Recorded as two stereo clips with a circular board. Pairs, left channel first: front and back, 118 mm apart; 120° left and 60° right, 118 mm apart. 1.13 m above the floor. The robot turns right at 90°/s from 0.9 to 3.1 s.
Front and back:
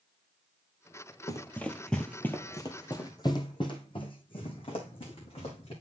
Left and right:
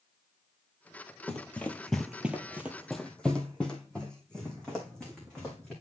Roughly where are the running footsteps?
Ahead left.